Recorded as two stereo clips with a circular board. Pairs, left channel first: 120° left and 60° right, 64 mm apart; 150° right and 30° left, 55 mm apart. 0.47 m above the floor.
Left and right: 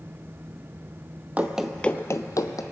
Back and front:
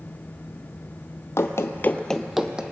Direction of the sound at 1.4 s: 125° right.